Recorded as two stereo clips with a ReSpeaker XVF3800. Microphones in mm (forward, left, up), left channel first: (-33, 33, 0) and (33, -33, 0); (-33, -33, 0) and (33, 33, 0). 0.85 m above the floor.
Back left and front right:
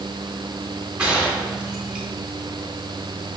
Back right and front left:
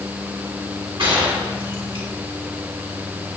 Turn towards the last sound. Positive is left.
turn(degrees=35)